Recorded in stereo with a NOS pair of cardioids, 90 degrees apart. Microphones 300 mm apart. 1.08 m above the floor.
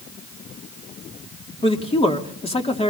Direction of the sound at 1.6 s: 20° left.